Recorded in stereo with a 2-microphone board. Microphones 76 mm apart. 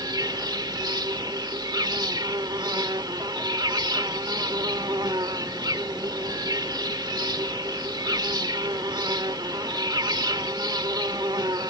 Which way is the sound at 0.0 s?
70° right (ahead or behind).